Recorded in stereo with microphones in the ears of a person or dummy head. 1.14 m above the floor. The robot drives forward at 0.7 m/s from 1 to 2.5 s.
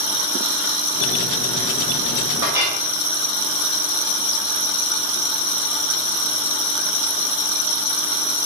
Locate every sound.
2.4 s a clink: 20° right (ahead or behind), 1.0 m; by 2.8 s 15° right (ahead or behind), 1.1 m